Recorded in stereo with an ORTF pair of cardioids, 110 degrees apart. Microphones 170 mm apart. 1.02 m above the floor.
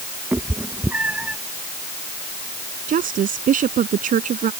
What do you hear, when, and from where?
0.3 s a cat meowing: 10° right; by 1.4 s 5° right
2.9 s a woman speaking: 55° right